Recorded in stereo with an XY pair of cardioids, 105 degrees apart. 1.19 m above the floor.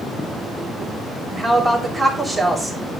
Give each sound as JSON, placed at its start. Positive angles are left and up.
{"t": 1.3, "sound": "a woman speaking", "azimuth_deg": -5, "distance_m": 3.5}